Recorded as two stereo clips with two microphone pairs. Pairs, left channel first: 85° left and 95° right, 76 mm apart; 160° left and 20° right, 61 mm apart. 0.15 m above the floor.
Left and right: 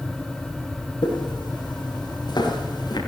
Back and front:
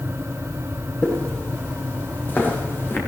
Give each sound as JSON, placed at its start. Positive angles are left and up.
{"t": 1.0, "sound": "footsteps", "azimuth_deg": 90, "distance_m": 6.5}